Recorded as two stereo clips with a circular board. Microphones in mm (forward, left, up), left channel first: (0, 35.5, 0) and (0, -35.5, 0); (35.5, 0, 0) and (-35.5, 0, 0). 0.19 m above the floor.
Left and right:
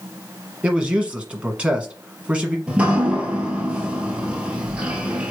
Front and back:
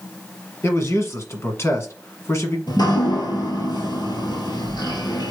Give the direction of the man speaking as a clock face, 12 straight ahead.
1 o'clock.